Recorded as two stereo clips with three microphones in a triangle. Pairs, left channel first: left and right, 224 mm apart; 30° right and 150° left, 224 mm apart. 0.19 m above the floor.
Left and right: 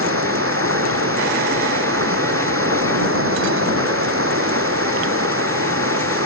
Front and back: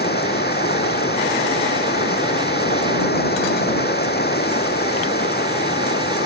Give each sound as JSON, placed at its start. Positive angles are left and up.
{"t": 0.0, "sound": "running water", "azimuth_deg": -75}